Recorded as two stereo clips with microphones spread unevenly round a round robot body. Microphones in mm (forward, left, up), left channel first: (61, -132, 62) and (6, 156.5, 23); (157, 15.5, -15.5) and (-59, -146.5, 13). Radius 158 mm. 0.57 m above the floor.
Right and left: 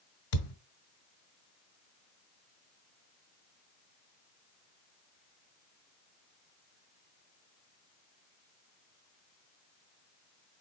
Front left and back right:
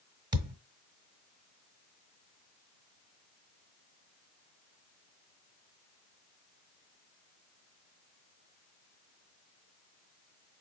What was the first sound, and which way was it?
A thud, 65° right.